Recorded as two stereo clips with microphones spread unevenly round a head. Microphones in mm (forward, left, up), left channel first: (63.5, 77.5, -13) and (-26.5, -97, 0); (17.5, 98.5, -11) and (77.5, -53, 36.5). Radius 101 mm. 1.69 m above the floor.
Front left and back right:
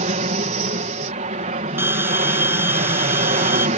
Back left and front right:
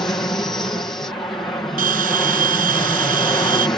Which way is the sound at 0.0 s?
170° right.